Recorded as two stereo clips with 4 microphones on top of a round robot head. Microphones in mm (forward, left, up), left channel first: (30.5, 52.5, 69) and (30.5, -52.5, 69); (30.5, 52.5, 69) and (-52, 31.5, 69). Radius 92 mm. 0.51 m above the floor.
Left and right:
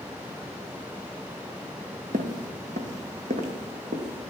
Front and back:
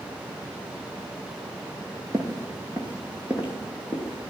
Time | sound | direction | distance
2.1 | footsteps | 100° right | 1.1 m